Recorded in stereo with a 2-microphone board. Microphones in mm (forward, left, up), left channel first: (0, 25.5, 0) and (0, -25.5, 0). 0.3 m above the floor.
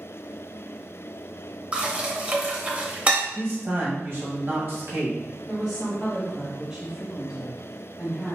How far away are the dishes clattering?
About 0.7 m.